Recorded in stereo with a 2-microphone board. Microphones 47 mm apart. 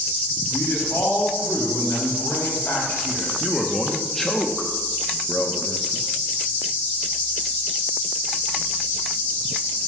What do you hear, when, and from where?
0.5 s a man speaking: 80° left, 4 m
3.4 s a man speaking: 5° left (ahead or behind), 0.7 m